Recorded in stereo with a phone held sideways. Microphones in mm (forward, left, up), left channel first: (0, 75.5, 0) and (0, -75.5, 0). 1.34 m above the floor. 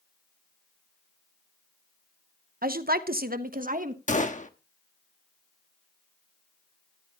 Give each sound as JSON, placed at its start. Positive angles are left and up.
{"t": 2.6, "sound": "a woman speaking", "side_deg": -75, "distance_m": 0.9}
{"t": 4.1, "sound": "a gunshot", "side_deg": 55, "distance_m": 1.2}